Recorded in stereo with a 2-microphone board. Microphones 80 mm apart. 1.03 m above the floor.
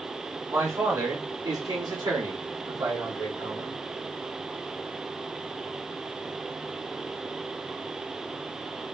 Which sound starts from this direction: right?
A man speaking, at 0.5 s.